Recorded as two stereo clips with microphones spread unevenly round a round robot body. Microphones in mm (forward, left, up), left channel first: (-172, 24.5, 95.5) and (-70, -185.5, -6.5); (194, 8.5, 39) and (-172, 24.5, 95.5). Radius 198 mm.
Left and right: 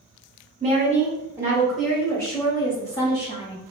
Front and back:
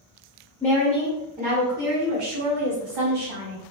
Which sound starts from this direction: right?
A woman speaking, at 0.6 s.